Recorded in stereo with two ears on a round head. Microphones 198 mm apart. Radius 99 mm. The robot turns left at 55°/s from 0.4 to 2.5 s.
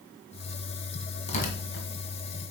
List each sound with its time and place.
1.3 s tearing paper: 30° left (ahead or behind), 1.8 m; by 1.9 s 60° left (ahead or behind), 1.8 m